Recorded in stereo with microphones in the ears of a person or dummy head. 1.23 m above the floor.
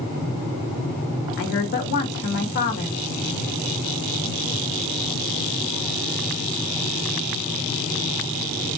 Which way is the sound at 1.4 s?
55° left (ahead or behind).